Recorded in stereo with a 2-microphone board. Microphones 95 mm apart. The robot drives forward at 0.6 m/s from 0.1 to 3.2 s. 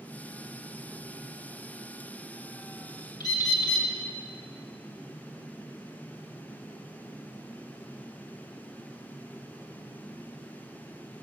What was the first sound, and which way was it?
A bird, 45° left (ahead or behind).